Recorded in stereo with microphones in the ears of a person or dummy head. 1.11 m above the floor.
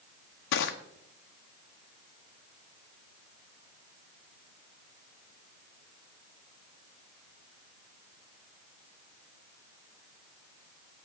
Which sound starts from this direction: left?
Crushing, at 0.5 s.